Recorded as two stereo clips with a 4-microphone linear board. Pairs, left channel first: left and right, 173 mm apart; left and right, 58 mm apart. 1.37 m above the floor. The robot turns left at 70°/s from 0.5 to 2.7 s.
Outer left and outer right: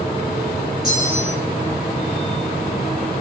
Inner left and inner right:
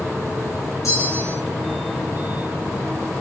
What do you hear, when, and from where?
0.8 s a bell: 65° left, 4 m; by 1.4 s 25° left, 4 m